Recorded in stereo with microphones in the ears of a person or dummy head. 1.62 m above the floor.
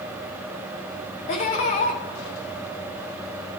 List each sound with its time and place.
1.3 s laughter: 45° left (ahead or behind), 0.9 m